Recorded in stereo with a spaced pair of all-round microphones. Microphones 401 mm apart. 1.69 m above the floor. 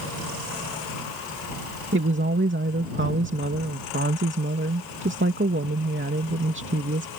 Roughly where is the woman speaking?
Right.